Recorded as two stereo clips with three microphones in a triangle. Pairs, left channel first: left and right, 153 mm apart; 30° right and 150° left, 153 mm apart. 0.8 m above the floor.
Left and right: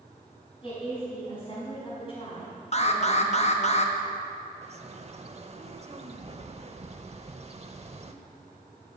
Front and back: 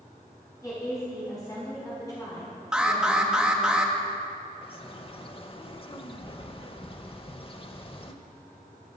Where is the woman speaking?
35° left, 5 m.